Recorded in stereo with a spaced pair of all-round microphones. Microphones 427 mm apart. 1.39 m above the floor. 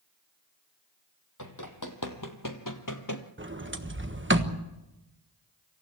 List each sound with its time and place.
1.4 s running footsteps: 45° left (ahead or behind), 3 m
3.4 s a sliding door: 25° right (ahead or behind), 1.4 m